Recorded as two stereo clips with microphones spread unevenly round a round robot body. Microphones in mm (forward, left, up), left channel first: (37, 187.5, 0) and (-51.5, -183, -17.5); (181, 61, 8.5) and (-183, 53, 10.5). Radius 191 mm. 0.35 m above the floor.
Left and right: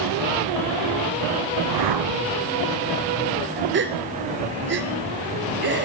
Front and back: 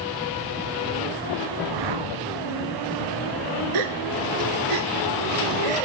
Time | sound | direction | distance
1.6 | a whoosh | 140° right | 0.7 m
3.7 | a gasp | 165° right | 1.1 m